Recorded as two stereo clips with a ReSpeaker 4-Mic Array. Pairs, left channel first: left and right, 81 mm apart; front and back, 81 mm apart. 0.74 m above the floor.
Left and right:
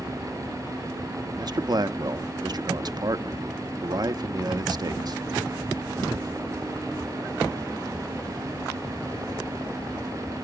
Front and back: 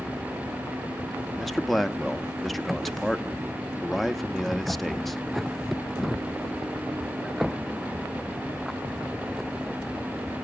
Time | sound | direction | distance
1.4 | a man speaking | 90° right | 0.7 m